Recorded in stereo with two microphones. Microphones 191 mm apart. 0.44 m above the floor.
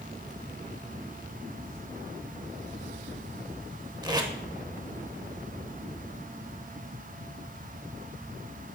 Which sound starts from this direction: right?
Tape being pulled, at 4.0 s.